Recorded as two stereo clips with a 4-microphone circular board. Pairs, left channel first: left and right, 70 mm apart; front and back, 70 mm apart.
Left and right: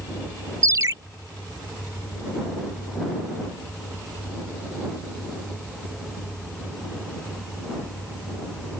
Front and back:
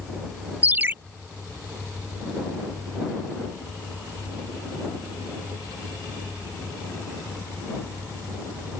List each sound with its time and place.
0.6 s a ringtone: 120° right